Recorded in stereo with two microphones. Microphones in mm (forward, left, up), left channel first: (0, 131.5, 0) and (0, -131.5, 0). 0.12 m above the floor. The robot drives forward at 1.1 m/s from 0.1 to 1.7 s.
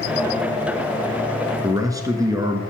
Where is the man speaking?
15° right (ahead or behind), 1.4 m.